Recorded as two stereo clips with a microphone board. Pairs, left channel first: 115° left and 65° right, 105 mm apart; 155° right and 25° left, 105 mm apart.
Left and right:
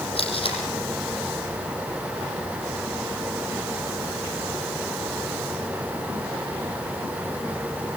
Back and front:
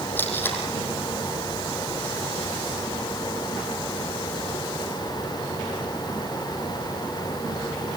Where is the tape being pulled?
135° left, 5.5 m.